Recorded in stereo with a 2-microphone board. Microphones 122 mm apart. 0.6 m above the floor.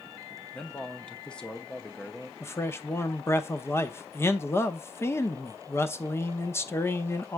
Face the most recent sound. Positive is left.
turn(degrees=20)  # may be behind; listen again after turning